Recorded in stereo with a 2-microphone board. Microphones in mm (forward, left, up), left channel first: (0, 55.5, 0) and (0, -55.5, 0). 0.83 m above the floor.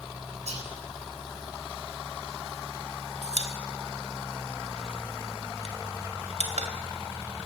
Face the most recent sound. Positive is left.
turn(degrees=-80)